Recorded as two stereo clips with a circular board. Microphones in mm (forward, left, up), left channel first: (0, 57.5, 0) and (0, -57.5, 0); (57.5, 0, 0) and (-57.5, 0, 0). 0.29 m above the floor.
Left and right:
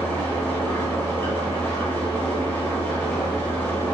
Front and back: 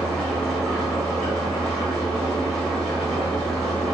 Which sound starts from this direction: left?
An engine running, at 0.0 s.